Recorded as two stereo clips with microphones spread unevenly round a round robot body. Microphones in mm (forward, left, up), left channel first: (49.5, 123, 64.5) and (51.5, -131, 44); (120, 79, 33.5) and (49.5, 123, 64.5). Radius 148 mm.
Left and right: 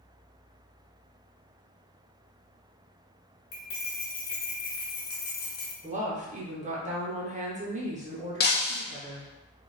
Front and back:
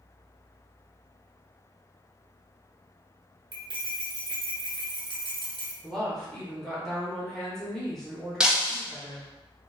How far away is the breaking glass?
About 0.8 m.